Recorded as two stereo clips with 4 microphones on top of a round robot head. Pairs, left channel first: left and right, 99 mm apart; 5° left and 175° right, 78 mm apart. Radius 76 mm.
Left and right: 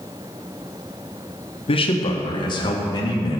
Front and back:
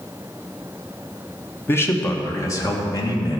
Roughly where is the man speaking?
Ahead left.